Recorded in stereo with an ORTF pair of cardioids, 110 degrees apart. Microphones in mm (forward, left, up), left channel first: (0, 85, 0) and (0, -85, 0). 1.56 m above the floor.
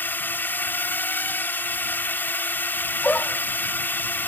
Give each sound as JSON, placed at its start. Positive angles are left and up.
{"t": 0.0, "sound": "a drone", "azimuth_deg": 10}
{"t": 3.0, "sound": "a dog barking", "azimuth_deg": 10}